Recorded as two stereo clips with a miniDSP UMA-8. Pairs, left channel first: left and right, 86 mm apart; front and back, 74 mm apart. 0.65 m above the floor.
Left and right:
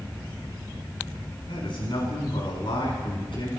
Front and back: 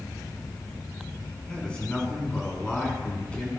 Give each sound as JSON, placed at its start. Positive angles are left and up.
{"t": 1.5, "sound": "a man speaking", "azimuth_deg": 75, "distance_m": 6.5}